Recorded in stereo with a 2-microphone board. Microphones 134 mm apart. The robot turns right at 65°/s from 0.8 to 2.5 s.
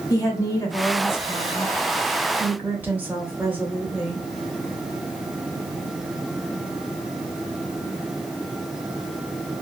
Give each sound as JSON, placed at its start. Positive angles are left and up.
{"t": 0.1, "sound": "a woman speaking", "side_deg": 25, "distance_m": 0.9}